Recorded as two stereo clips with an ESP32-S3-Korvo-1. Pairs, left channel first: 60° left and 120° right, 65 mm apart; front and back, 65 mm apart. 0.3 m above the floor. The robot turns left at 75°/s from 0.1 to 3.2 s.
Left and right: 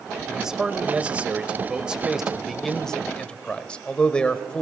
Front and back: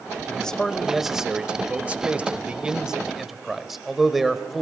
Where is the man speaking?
45° right, 1.2 m; by 4.6 s 95° left, 1.2 m.